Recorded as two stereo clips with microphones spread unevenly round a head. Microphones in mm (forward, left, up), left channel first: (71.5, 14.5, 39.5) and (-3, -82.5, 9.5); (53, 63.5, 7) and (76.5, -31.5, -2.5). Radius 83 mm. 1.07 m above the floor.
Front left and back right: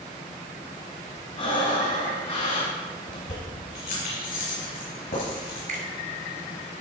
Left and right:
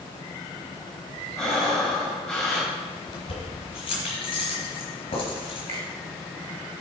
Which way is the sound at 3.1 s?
90° left.